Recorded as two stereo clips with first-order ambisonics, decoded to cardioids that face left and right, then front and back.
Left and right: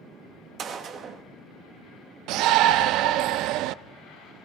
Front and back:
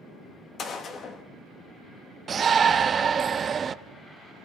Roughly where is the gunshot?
Ahead right.